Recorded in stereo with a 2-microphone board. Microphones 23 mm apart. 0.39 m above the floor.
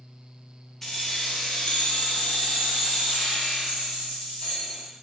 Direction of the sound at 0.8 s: 10° left (ahead or behind).